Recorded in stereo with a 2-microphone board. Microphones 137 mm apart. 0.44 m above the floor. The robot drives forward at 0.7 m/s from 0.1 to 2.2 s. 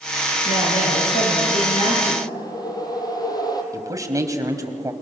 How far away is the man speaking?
About 3 m.